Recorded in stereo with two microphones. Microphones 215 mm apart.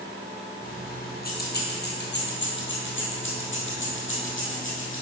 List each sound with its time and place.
0.6 s keys jangling: 40° left (ahead or behind), 2.5 m; by 5.0 s 70° left (ahead or behind), 3 m